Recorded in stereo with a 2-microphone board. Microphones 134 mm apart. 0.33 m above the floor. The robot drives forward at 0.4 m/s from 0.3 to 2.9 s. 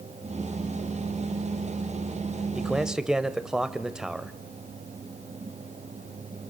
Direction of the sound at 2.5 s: 5° right (ahead or behind).